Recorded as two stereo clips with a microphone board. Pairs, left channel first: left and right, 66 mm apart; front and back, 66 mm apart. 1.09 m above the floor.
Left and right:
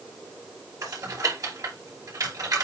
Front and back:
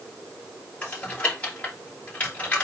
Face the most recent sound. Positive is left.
turn(degrees=-65)